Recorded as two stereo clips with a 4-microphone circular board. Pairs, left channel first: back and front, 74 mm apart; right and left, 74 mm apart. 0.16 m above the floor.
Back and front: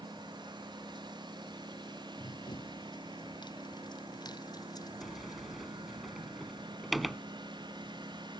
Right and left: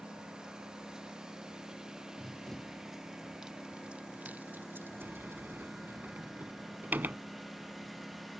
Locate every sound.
0.0 s a lawn mower: 10° left; by 8.4 s straight ahead
2.2 s running footsteps: 170° right; by 6.0 s 135° left
5.0 s a sliding door: 90° left